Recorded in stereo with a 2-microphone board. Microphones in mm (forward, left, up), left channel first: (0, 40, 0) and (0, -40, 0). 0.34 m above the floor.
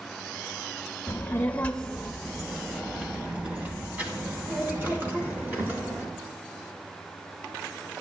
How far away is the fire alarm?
I don't hear a fire alarm.